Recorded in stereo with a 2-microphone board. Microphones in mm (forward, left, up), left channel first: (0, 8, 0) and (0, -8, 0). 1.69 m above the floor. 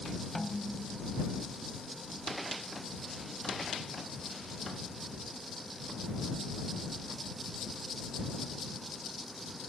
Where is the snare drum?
10° left (ahead or behind).